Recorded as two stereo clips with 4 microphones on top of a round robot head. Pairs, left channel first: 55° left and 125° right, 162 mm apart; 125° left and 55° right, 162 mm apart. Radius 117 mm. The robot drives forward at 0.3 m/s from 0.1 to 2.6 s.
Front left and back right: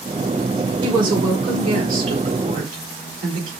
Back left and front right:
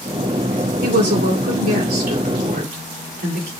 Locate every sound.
0.8 s a woman speaking: 65° right, 4 m; by 3.5 s 75° right, 4 m